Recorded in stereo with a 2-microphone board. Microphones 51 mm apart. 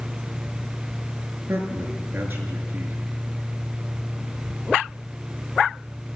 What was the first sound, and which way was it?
A man speaking, 40° right (ahead or behind).